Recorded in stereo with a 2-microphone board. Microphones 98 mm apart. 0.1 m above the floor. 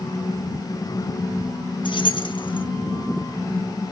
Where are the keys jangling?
60° left (ahead or behind), 1.7 m.